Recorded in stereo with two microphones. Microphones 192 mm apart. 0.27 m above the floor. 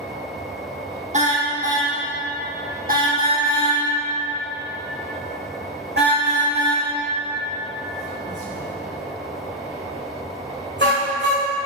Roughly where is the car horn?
Right.